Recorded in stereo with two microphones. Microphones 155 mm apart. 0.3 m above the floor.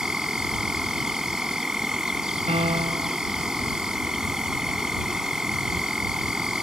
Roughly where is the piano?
Right.